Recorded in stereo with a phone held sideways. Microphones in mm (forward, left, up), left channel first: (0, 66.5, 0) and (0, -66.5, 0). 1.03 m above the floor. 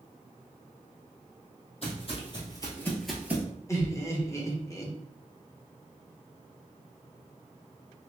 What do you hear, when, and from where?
1.8 s footsteps: 50° left (ahead or behind), 1.8 m; by 3.5 s 20° right (ahead or behind), 1.1 m
3.7 s laughter: 20° left (ahead or behind), 1.0 m